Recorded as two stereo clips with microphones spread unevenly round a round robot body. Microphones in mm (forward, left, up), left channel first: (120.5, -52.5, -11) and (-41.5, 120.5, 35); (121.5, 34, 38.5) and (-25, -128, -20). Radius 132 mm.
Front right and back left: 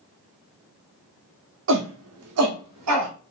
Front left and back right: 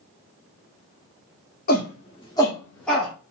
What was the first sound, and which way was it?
A shout, 105° left.